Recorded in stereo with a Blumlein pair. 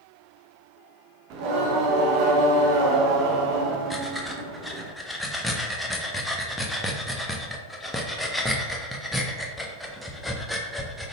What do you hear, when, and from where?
1.3 s singing: 40° right, 0.7 m
3.9 s breathing: 5° left, 0.6 m